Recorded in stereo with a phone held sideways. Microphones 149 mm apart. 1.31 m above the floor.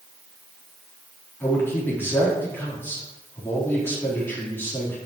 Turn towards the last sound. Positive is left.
turn(degrees=15)  # may be behind; listen again after turning